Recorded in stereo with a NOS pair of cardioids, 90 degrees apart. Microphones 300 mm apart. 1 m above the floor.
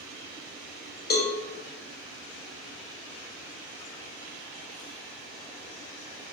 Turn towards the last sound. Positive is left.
turn(degrees=35)